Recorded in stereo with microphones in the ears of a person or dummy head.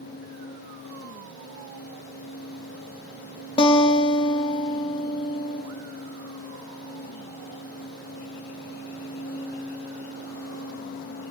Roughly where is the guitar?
Left.